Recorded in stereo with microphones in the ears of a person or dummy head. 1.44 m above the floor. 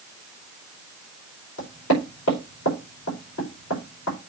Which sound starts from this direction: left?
Knocking, at 1.6 s.